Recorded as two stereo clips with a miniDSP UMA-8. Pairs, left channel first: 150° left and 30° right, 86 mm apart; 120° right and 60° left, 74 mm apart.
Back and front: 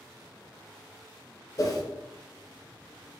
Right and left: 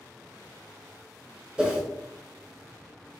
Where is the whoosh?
135° left, 0.7 m.